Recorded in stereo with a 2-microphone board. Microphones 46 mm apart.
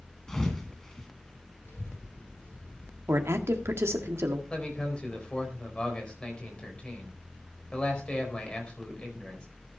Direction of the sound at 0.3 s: 10° left (ahead or behind).